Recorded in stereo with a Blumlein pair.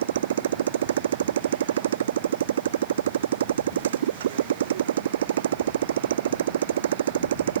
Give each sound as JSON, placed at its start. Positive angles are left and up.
{"t": 0.0, "sound": "a motorcycle", "azimuth_deg": -65}